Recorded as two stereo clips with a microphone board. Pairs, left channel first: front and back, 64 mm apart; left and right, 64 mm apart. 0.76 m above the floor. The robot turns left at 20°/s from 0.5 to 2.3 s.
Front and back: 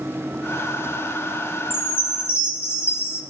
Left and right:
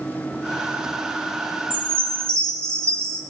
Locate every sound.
1.7 s a chime: 35° right, 0.8 m; by 3.2 s 45° right, 0.8 m